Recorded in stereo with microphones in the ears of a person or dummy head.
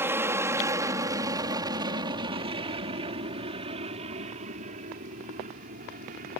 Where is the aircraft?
15° right (ahead or behind); by 6.4 s 55° right (ahead or behind).